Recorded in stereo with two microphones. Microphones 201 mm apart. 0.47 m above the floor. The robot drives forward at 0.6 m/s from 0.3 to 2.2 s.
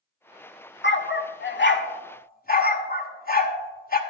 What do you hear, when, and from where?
0.8 s a dog barking: 65° left (ahead or behind), 0.7 m; by 4.0 s 50° left (ahead or behind), 0.9 m